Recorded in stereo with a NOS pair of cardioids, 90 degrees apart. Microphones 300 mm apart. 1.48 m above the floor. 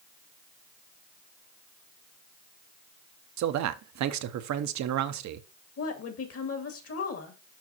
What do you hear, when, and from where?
3.4 s a man speaking: 65° right, 0.8 m
5.8 s a woman speaking: 50° left, 2.0 m